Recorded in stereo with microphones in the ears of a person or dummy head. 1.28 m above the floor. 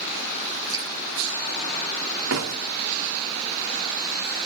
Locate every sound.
0.7 s dripping: 25° right (ahead or behind), 4.5 m
2.3 s a door slam: 75° right (ahead or behind), 1.8 m